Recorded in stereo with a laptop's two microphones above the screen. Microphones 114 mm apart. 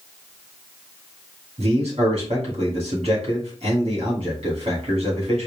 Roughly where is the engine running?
I don't hear an engine running.